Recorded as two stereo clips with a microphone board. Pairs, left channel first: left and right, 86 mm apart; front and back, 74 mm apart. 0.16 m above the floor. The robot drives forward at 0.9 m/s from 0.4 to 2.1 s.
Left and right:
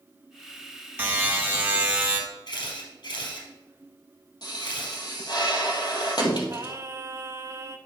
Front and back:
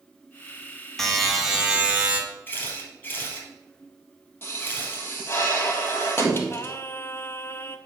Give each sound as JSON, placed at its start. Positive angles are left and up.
{"t": 1.0, "sound": "a buzzer", "azimuth_deg": -75, "distance_m": 1.7}
{"t": 2.5, "sound": "a camera shutter", "azimuth_deg": 65, "distance_m": 3.5}
{"t": 4.4, "sound": "a pop", "azimuth_deg": 55, "distance_m": 1.7}
{"t": 6.5, "sound": "singing", "azimuth_deg": -45, "distance_m": 0.6}